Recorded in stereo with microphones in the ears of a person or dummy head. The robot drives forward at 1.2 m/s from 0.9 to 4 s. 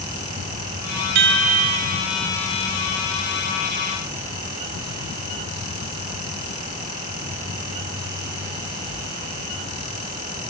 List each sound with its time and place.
1.1 s a chime: 60° right (ahead or behind); by 2.0 s 45° right (ahead or behind)